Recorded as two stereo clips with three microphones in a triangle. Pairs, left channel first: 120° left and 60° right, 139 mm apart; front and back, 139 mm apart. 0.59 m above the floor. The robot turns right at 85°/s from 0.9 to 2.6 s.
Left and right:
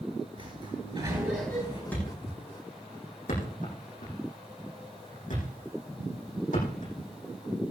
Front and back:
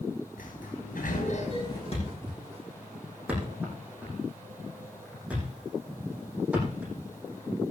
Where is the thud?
40° left, 8 m; by 7.7 s 100° left, 8 m.